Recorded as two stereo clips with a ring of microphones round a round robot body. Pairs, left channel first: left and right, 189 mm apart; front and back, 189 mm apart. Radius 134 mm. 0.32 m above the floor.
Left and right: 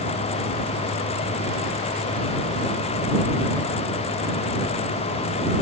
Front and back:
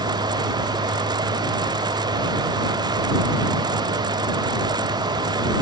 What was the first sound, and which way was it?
Only background noise.